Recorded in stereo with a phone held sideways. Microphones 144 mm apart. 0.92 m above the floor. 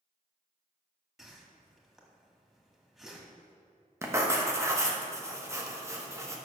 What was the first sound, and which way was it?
A whoosh, centre (ahead or behind).